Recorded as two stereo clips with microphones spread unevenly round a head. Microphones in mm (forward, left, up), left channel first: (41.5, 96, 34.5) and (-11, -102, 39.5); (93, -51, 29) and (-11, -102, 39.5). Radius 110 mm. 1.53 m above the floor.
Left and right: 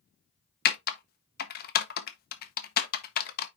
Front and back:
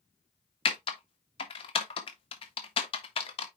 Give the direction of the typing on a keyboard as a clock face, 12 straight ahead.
10 o'clock.